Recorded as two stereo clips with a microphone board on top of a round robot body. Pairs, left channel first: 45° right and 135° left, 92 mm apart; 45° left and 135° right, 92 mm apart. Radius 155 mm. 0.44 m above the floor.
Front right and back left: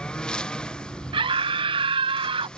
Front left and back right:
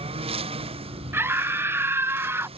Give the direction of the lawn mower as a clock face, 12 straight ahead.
4 o'clock.